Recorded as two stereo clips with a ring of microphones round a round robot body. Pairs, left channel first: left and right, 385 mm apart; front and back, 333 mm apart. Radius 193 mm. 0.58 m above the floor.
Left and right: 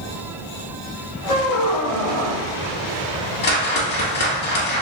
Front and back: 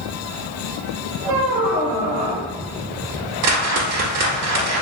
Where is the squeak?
Straight behind, 0.9 m.